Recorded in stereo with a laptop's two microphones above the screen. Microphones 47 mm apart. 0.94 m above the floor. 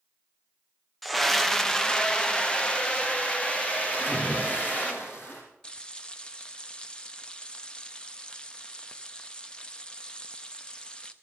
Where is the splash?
45° left (ahead or behind), 4 m.